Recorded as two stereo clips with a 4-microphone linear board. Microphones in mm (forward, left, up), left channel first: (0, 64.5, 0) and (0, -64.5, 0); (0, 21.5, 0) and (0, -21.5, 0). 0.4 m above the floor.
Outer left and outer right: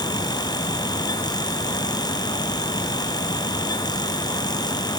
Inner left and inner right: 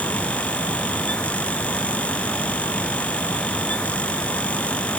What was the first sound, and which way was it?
Only background noise.